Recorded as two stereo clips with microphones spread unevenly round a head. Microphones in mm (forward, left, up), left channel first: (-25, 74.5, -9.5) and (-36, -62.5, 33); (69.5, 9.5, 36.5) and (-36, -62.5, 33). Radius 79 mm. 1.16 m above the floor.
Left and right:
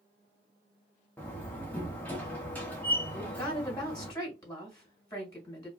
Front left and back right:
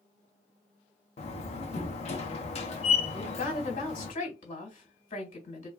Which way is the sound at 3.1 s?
30° left.